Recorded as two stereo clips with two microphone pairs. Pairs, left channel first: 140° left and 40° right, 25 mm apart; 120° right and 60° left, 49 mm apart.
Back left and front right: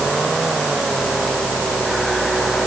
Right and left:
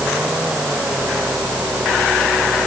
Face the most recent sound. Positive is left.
No sound to turn to.